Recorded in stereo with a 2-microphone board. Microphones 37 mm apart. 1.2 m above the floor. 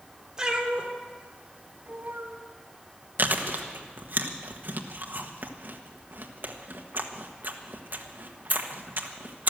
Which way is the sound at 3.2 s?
55° right (ahead or behind).